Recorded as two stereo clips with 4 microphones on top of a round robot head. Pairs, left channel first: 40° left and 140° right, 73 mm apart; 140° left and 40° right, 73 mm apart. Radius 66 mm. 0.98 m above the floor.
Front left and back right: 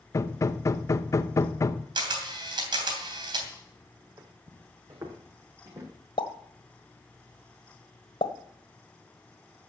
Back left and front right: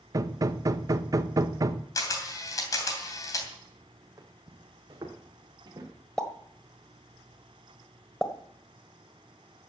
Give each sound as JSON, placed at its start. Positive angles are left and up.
{"t": 0.1, "sound": "hammering", "azimuth_deg": -5, "distance_m": 1.0}
{"t": 1.9, "sound": "a camera shutter", "azimuth_deg": -170, "distance_m": 3.0}
{"t": 4.2, "sound": "footsteps", "azimuth_deg": -90, "distance_m": 2.0}
{"t": 6.2, "sound": "a pop", "azimuth_deg": 55, "distance_m": 1.4}